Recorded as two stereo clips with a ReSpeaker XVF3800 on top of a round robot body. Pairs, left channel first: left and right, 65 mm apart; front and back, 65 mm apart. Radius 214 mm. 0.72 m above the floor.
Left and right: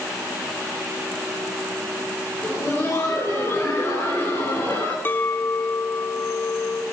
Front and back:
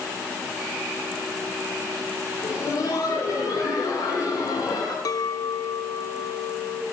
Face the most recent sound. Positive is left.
turn(degrees=30)